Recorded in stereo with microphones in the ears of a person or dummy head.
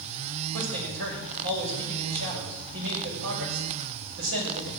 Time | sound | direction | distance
0.5 | a man speaking | 75° right (ahead or behind) | 6.5 m